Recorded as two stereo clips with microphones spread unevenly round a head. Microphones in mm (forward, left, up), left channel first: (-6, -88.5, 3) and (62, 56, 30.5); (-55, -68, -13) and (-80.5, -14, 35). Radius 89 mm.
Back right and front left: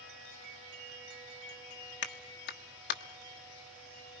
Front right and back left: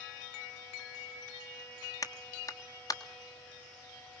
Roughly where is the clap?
Right.